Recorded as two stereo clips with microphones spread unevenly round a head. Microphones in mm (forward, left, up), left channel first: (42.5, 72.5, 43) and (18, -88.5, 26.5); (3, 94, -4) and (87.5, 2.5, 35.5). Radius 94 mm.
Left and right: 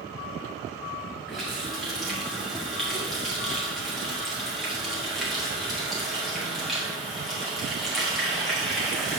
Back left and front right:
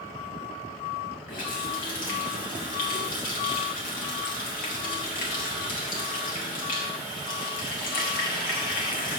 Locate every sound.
1.3 s a running tap: 170° left, 1.1 m